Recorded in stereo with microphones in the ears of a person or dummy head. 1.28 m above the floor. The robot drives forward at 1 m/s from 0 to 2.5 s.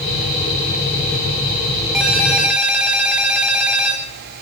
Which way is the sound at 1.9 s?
Centre (ahead or behind).